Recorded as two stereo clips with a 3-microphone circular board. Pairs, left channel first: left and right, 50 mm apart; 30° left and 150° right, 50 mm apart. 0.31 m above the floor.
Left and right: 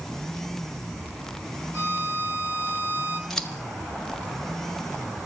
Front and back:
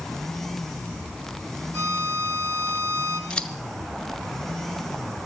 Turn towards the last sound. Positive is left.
turn(degrees=25)